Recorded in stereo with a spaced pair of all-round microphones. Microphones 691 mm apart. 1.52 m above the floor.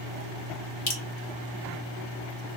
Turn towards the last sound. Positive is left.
turn(degrees=55)  # may be behind; listen again after turning